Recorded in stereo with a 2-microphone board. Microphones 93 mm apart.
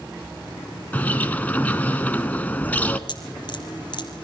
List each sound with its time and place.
0.9 s a bird: 20° left (ahead or behind), 1.1 m
3.1 s dripping: 55° left (ahead or behind), 4 m